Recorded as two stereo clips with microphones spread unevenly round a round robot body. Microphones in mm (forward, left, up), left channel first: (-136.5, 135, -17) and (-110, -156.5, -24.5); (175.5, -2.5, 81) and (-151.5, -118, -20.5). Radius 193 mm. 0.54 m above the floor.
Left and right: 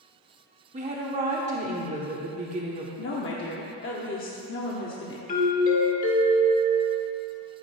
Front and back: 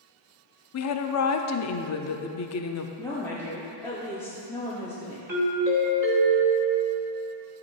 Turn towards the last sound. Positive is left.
turn(degrees=140)